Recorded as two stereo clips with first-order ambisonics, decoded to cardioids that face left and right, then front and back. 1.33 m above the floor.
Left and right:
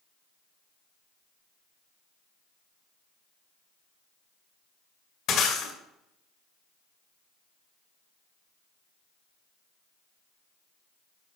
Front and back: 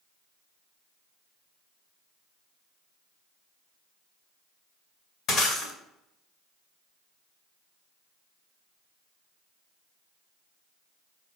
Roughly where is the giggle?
No giggle in this recording.